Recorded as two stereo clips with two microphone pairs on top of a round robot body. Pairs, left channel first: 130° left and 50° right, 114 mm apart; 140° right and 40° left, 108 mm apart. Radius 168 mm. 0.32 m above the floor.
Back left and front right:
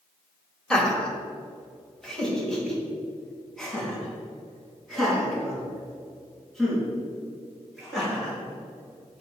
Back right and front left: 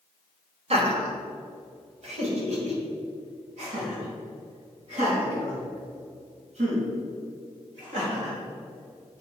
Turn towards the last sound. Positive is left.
turn(degrees=45)